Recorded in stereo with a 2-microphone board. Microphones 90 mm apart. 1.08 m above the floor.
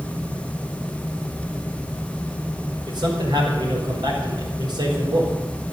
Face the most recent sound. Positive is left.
turn(degrees=-60)  # may be behind; listen again after turning